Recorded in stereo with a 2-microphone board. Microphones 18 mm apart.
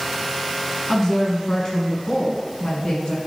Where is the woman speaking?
15° left (ahead or behind), 1.6 m; by 3.2 s 55° left (ahead or behind), 2.0 m.